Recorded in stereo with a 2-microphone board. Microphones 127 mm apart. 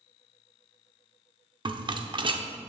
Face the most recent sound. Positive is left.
turn(degrees=-40)  # may be behind; listen again after turning